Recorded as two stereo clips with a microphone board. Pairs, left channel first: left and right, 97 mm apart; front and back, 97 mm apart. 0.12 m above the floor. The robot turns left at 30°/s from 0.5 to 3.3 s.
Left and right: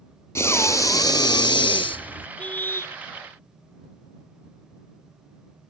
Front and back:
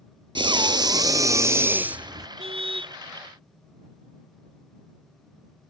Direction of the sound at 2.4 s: 165° left.